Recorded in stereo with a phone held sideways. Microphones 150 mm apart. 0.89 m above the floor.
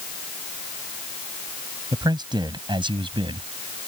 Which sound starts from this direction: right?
A man speaking, at 1.9 s.